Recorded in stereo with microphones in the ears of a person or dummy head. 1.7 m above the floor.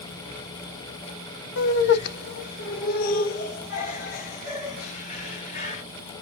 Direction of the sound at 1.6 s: 70° left (ahead or behind).